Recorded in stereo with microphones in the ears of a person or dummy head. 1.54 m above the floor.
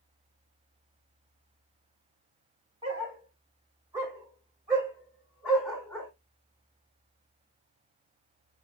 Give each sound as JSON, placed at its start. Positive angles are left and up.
{"t": 2.8, "sound": "a dog barking", "side_deg": -35, "distance_m": 2.5}